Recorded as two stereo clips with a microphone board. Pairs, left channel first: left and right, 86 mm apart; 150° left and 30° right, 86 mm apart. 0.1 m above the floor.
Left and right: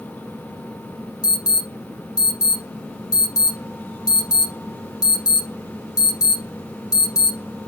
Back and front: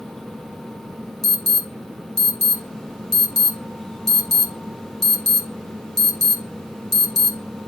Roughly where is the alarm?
Ahead left.